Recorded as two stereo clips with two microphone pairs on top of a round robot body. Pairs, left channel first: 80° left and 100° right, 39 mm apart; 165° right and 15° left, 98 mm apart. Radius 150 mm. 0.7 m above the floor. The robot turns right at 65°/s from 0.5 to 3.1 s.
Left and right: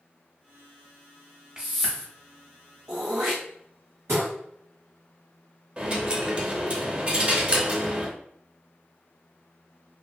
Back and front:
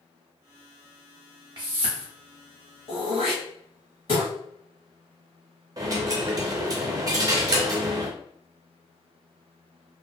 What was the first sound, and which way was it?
A whoosh, 25° right.